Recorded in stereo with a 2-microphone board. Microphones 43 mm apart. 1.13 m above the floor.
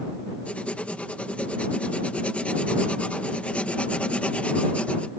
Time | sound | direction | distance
0.5 | writing | 30° left (ahead or behind) | ?